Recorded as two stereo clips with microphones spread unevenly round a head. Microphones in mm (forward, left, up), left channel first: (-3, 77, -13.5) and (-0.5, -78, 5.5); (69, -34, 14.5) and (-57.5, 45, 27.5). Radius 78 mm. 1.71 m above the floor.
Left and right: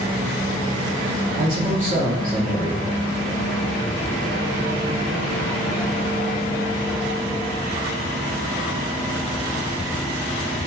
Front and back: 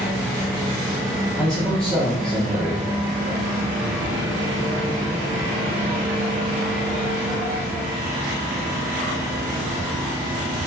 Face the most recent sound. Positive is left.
turn(degrees=-120)